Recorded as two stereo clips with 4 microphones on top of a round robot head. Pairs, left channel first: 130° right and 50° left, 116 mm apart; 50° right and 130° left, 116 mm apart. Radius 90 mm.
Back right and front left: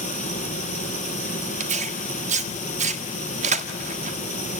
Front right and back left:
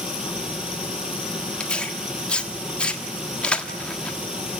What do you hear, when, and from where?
0.0 s running water: 145° right, 3 m
1.6 s tearing paper: 30° left, 1.5 m